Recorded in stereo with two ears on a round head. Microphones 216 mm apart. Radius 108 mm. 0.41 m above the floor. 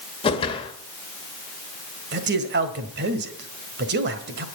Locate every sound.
0.2 s a whoosh: 20° left (ahead or behind), 1.3 m
2.1 s a man speaking: 45° right (ahead or behind), 1.7 m